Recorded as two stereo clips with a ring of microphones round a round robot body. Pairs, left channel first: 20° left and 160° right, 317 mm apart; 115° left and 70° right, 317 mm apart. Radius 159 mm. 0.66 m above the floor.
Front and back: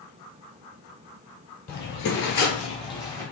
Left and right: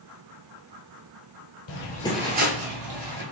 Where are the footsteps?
80° left, 1.0 m; by 3.2 s 60° right, 1.7 m.